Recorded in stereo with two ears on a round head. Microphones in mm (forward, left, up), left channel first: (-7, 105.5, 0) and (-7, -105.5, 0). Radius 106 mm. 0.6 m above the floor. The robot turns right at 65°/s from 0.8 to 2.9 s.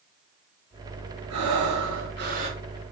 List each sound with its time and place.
1.3 s breathing: 105° right, 1.4 m; by 2.6 s 20° right, 1.4 m